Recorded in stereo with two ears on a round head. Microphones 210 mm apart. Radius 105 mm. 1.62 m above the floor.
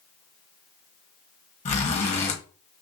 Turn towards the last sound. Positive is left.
turn(degrees=30)  # may be behind; listen again after turning